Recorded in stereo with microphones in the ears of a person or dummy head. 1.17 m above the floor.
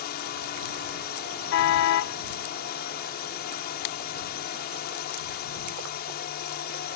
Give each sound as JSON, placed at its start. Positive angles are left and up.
{"t": 0.0, "sound": "a drone", "side_deg": 50}
{"t": 1.5, "sound": "a car horn", "side_deg": 70}